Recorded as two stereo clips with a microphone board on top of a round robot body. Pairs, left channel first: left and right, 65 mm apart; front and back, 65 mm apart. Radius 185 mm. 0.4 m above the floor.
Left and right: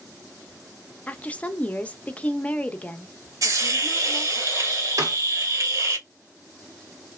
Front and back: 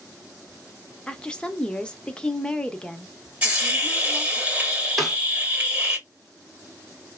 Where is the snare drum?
90° right, 1.9 m.